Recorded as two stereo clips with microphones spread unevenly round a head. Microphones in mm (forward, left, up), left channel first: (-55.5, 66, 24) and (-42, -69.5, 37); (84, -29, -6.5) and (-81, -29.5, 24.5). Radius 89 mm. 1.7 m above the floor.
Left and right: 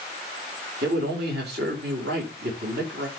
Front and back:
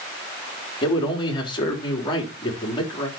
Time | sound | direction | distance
0.8 | a man speaking | 65° right | 4 m